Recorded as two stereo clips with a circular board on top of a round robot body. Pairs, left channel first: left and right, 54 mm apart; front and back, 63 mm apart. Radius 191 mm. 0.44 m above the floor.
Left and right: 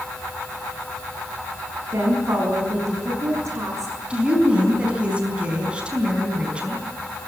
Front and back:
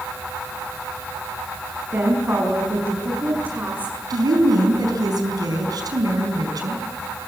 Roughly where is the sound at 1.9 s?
Behind right.